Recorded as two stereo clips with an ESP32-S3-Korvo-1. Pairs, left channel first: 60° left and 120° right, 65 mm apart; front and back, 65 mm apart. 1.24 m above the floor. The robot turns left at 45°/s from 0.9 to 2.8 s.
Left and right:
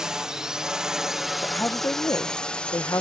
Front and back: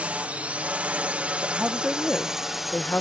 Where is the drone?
Straight behind; by 3.0 s 95° left.